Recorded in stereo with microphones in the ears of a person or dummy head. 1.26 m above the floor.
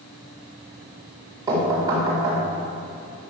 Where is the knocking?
25° right (ahead or behind), 3.5 m.